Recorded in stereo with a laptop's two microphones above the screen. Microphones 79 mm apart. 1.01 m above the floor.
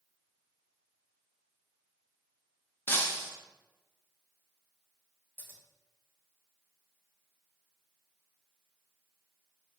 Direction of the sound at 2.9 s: 25° left (ahead or behind).